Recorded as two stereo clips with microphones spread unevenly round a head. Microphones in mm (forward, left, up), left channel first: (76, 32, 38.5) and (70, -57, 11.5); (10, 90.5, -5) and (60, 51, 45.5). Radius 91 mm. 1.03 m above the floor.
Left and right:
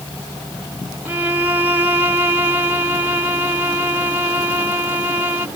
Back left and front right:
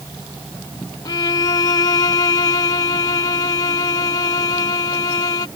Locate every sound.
1.1 s a violin: 175° right